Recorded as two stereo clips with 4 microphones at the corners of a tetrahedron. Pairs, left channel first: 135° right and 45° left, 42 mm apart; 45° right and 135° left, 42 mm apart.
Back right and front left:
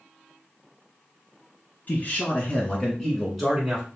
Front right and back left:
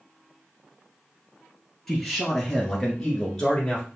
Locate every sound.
1.9 s a man speaking: 130° right, 1.4 m; by 3.9 s 10° right, 1.2 m